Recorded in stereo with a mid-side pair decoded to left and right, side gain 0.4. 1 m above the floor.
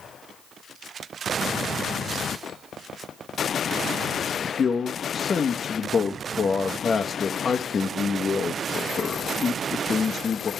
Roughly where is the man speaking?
Ahead left.